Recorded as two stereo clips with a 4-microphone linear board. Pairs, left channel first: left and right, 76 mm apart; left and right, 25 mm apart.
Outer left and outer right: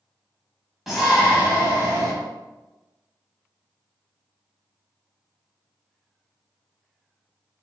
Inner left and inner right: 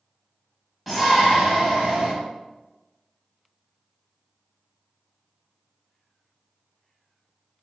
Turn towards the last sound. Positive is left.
turn(degrees=-35)  # may be behind; listen again after turning